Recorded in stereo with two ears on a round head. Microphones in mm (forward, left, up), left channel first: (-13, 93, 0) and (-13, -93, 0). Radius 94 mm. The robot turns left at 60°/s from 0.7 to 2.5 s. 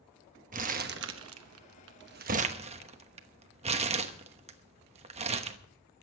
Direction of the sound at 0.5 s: 40° right (ahead or behind).